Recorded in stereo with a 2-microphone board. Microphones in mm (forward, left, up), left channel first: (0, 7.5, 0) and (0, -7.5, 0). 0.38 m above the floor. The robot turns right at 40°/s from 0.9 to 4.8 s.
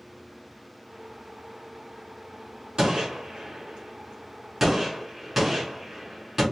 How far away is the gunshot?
About 3 m.